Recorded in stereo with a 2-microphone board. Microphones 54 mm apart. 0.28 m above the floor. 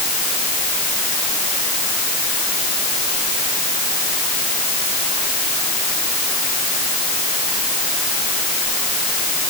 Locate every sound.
Only background noise.